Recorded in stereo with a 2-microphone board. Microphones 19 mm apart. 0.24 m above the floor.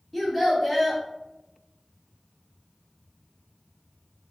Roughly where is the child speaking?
Centre.